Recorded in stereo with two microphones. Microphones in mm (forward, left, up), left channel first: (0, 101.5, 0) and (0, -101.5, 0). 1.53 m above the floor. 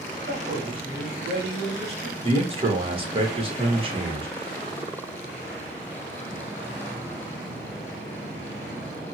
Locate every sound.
0.3 s a man speaking: 30° right (ahead or behind), 1.4 m
2.2 s a man speaking: 25° right (ahead or behind), 1.2 m